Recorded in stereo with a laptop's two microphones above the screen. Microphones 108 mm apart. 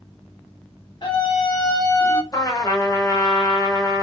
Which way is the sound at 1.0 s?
50° left (ahead or behind).